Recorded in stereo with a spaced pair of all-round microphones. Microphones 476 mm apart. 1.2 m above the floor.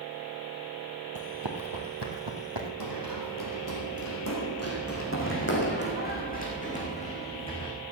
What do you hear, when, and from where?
1.1 s running footsteps: 45° right (ahead or behind), 1.7 m; by 2.7 s 65° right (ahead or behind), 3 m
2.8 s running footsteps: 50° left (ahead or behind), 3.5 m; by 7.7 s 10° left (ahead or behind), 5 m